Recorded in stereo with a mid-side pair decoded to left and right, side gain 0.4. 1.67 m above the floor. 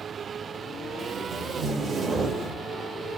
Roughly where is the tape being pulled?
Ahead right.